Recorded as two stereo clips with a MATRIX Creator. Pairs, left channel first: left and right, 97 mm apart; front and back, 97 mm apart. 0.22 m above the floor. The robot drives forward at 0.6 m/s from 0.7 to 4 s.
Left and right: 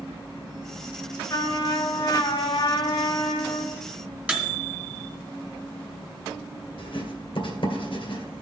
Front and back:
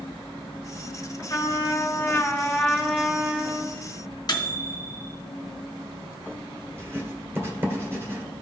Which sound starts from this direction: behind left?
Writing, at 6.8 s.